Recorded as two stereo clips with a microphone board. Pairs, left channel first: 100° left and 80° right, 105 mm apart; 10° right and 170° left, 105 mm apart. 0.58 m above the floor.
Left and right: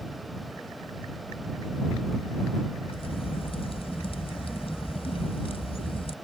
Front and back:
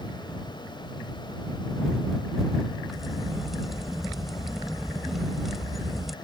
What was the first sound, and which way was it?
A crack, 80° left.